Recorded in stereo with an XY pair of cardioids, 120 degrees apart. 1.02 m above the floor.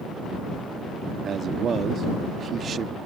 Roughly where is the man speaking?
Ahead right.